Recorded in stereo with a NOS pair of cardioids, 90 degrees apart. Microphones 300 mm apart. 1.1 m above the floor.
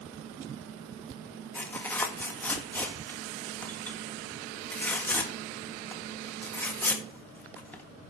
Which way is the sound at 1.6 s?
5° left.